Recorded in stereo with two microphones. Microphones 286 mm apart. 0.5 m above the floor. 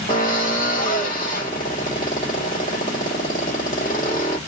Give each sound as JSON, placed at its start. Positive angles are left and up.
{"t": 0.1, "sound": "a drill", "side_deg": 30, "distance_m": 1.3}